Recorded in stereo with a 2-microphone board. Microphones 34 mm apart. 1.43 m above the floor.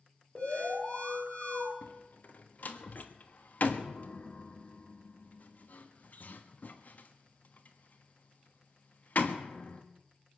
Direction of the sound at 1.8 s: 50° left (ahead or behind).